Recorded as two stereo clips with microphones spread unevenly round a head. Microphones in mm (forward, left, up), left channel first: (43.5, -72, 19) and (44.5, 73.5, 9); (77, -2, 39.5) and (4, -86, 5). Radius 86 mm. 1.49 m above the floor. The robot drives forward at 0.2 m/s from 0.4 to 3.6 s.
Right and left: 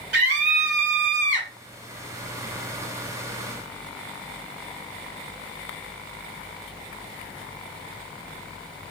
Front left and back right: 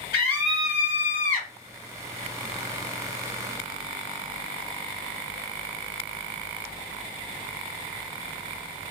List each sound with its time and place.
0.1 s a scream: 90° left, 1.8 m; by 1.5 s 100° left, 1.8 m